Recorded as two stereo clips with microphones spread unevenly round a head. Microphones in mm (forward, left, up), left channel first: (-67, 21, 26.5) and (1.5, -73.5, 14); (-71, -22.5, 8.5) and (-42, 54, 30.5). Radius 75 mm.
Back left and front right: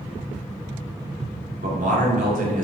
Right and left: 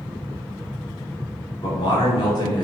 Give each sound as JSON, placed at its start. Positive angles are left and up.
{"t": 1.6, "sound": "a man speaking", "azimuth_deg": -60, "distance_m": 2.5}